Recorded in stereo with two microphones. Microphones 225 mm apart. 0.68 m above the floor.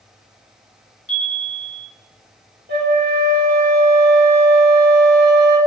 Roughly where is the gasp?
No gasp in this recording.